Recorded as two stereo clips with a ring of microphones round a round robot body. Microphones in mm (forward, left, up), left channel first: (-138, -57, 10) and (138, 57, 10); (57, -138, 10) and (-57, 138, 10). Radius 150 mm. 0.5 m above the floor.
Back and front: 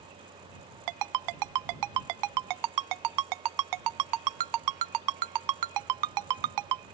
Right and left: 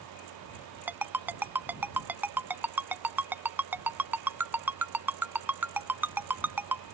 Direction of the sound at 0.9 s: 30° left.